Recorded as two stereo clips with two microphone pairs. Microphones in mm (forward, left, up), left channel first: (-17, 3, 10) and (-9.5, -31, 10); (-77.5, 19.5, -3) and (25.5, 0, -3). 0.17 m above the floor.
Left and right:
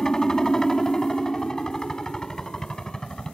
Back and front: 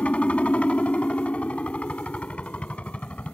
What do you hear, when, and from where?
0.0 s a helicopter: 120° left